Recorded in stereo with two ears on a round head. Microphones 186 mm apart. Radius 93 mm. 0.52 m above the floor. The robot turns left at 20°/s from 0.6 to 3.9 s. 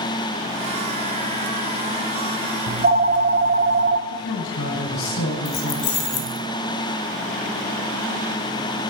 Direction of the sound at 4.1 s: 70° left (ahead or behind).